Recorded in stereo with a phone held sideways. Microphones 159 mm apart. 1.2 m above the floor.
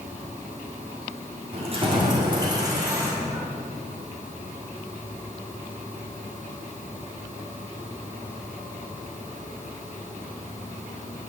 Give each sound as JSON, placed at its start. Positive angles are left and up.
{"t": 1.5, "sound": "keys jangling", "side_deg": -40, "distance_m": 1.8}